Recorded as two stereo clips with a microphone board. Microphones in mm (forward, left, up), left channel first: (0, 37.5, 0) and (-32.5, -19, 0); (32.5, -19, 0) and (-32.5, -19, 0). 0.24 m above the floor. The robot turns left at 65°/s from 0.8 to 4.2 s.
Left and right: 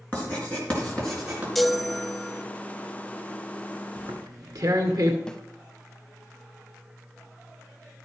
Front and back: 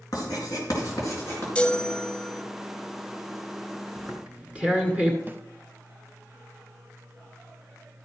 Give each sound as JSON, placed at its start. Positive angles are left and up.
{"t": 0.1, "sound": "writing", "azimuth_deg": -10, "distance_m": 4.0}
{"t": 1.6, "sound": "a chime", "azimuth_deg": -20, "distance_m": 0.9}
{"t": 4.0, "sound": "tearing paper", "azimuth_deg": -95, "distance_m": 1.8}
{"t": 5.3, "sound": "a snare drum", "azimuth_deg": 135, "distance_m": 0.7}